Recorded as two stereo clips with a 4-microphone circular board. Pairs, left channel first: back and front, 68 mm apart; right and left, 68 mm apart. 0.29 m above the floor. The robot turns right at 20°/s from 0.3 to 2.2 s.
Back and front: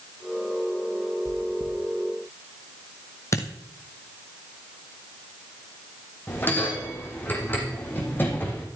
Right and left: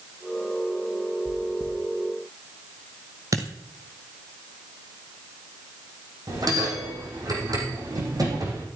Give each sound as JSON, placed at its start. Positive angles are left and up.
{"t": 1.2, "sound": "chewing", "azimuth_deg": 180, "distance_m": 3.0}
{"t": 3.3, "sound": "a dropped coin", "azimuth_deg": 130, "distance_m": 1.7}
{"t": 6.3, "sound": "a bell", "azimuth_deg": 120, "distance_m": 4.0}